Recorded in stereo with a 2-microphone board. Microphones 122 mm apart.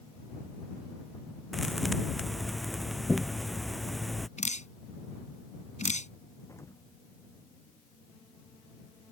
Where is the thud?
Centre (ahead or behind).